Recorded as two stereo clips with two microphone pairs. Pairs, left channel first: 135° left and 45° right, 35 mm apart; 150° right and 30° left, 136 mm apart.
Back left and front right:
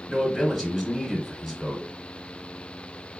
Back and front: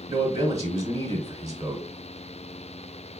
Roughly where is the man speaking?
Ahead left.